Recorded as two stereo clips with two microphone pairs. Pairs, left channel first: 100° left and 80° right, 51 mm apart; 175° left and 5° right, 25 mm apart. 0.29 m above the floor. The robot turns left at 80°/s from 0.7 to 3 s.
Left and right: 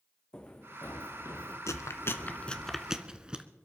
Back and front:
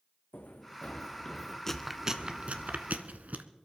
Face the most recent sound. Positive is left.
turn(degrees=-10)